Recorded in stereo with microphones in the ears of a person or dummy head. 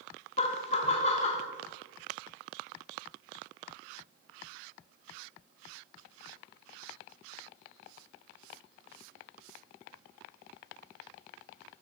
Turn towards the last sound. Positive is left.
turn(degrees=30)  # may be behind; listen again after turning